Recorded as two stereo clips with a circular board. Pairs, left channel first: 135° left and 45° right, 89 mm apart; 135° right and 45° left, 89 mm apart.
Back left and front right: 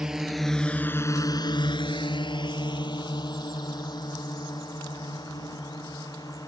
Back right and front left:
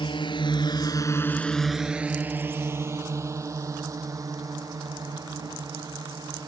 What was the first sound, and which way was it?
A drone, 125° right.